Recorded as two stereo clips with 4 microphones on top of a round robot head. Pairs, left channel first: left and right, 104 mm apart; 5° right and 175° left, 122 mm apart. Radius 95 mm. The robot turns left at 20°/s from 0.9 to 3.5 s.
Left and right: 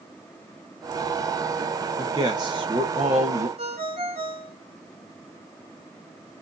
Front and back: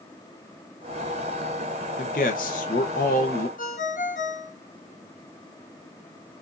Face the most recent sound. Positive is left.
turn(degrees=-40)